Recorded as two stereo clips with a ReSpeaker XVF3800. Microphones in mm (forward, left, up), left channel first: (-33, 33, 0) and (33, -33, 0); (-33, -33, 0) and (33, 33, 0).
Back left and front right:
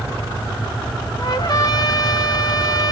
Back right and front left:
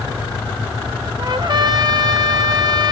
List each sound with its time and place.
1.2 s a trumpet: 90° left, 0.5 m